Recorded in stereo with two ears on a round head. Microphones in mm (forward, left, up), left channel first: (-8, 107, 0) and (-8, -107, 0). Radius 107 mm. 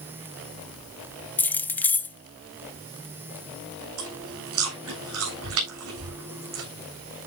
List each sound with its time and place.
1.4 s keys jangling: 10° left (ahead or behind), 0.6 m
4.0 s chewing: 70° right (ahead or behind), 8.5 m